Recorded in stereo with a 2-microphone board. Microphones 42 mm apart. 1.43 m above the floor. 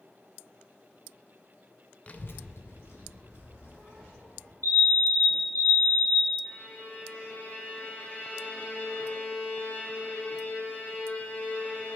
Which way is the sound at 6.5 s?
30° left (ahead or behind).